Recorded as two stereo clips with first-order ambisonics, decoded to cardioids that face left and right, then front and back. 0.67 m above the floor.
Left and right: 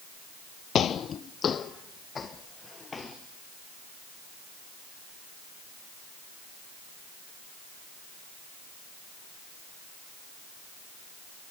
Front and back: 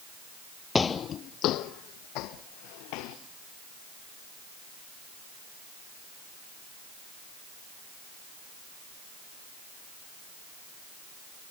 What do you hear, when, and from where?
0.8 s footsteps: 70° left, 0.7 m; by 3.2 s 15° left, 2.5 m